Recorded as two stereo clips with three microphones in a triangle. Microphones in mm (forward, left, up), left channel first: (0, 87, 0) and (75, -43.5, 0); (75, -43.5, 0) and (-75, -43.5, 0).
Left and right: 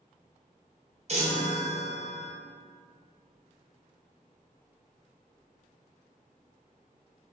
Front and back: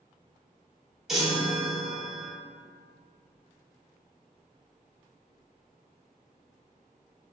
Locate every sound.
1.1 s a chime: 95° right, 0.8 m